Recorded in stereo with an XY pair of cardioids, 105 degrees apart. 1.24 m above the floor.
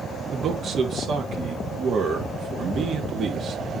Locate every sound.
0.3 s a man speaking: 50° right, 3 m